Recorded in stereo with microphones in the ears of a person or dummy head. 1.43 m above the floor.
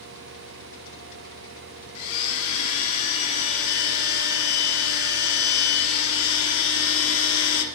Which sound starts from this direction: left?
A blender, at 1.9 s.